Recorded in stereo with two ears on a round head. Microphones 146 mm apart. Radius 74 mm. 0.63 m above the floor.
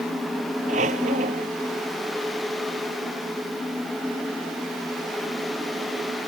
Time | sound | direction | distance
0.7 | a squeak | 45° right (ahead or behind) | ?